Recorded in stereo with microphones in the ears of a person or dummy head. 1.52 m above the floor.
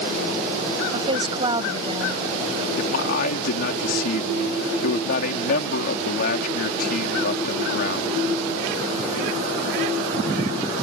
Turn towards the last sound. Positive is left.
turn(degrees=60)  # may be behind; listen again after turning